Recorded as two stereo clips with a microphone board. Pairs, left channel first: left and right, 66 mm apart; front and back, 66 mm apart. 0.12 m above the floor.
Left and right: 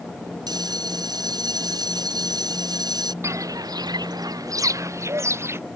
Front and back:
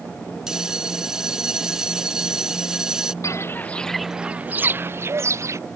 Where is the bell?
100° right.